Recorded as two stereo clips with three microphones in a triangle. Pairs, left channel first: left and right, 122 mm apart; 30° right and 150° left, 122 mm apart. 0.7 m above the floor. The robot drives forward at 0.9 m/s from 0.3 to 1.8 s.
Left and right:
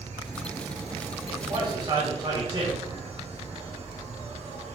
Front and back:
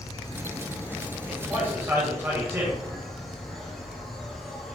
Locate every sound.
0.0 s an insect: 90° right, 2.5 m; by 4.8 s 120° right, 2.5 m
1.3 s a man speaking: 140° right, 4 m; by 2.8 s 145° right, 4.5 m